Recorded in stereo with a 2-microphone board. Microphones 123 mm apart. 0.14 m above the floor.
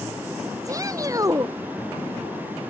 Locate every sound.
0.7 s a shout: 30° right (ahead or behind)